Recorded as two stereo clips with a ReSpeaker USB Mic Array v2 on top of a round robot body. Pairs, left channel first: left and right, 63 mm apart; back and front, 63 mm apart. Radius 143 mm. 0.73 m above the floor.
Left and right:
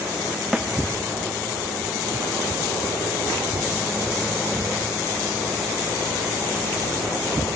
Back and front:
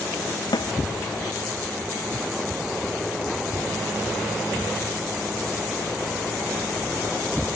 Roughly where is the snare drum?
Behind.